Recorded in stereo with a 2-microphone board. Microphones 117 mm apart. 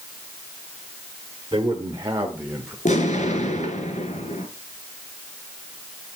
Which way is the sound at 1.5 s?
35° right (ahead or behind).